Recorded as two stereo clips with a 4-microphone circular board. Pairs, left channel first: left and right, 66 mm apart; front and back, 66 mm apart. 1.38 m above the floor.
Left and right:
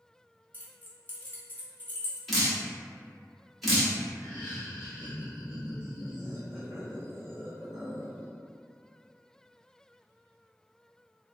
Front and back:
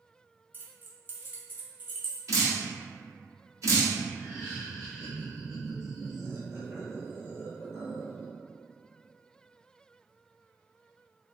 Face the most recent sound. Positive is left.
turn(degrees=135)